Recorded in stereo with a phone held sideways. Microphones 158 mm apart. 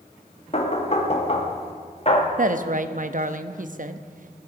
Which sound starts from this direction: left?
Knocking, at 0.5 s.